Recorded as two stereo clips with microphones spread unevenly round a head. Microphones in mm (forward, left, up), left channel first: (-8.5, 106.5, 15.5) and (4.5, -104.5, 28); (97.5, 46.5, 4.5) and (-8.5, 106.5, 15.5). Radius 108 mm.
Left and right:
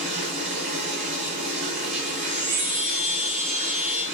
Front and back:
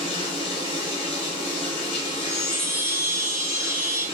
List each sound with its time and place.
0.0 s running water: 50° right, 1.3 m
2.1 s a chime: 100° right, 2.0 m